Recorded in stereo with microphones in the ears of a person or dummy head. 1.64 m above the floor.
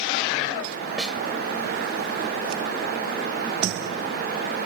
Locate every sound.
1.0 s a snare drum: 5° right (ahead or behind)